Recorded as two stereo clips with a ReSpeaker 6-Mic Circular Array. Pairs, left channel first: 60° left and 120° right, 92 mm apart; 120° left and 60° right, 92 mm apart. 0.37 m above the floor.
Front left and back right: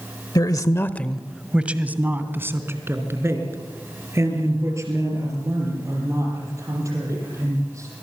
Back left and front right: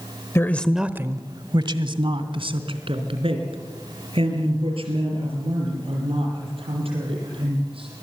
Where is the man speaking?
70° left, 1.2 m; by 7.9 s 65° right, 11 m.